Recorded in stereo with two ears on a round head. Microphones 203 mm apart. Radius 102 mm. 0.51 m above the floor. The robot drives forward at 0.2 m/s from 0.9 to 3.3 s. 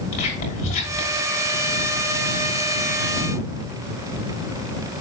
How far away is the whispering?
About 6.5 m.